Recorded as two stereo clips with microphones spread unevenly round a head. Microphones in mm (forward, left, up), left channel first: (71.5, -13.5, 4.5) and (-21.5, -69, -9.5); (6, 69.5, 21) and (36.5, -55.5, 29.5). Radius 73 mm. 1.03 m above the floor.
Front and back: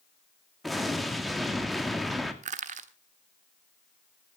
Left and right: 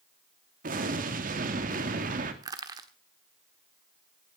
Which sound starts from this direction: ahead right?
An explosion, at 0.6 s.